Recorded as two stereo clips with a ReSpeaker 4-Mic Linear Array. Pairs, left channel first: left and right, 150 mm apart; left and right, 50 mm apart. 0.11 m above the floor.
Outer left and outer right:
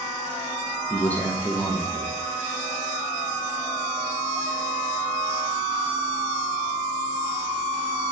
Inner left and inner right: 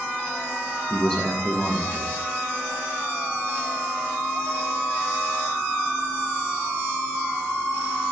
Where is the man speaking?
10° left (ahead or behind), 4 m.